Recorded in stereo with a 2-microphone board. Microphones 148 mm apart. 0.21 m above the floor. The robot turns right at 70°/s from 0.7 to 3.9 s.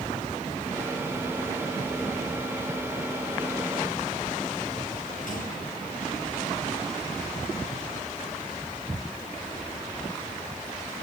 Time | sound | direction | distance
5.3 | a gunshot | 65° left (ahead or behind) | 5 m